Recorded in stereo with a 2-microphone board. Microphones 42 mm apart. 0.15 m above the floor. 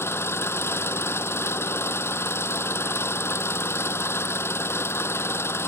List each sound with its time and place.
0.0 s an engine running: 65° left (ahead or behind)